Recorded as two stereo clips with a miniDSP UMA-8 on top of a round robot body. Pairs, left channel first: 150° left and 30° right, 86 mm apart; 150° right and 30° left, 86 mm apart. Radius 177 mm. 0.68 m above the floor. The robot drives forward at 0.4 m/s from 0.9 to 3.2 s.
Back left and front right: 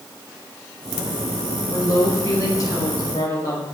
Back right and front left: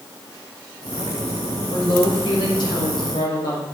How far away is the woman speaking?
About 3.5 m.